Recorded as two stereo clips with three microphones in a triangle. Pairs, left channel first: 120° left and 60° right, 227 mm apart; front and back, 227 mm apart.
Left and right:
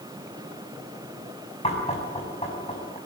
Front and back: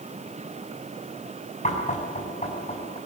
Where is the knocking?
60° left, 7 m.